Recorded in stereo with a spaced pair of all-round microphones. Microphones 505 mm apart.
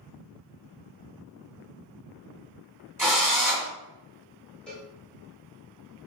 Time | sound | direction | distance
3.0 | a drill | 5° right (ahead or behind) | 1.4 m
4.7 | a cowbell | centre (ahead or behind) | 1.0 m